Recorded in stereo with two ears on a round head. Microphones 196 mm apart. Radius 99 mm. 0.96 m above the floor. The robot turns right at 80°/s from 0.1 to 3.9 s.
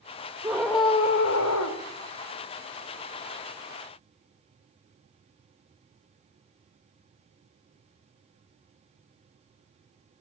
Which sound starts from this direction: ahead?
A scream, at 0.4 s.